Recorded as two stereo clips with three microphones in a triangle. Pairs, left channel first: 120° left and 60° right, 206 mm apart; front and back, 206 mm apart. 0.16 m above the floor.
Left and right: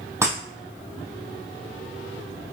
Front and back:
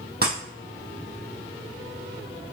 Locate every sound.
0.2 s breaking glass: 140° right, 2.5 m